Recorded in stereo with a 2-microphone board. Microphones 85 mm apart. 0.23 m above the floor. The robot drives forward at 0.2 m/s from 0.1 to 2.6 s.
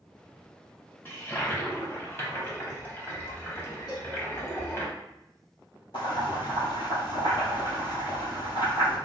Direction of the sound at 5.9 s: 65° left (ahead or behind).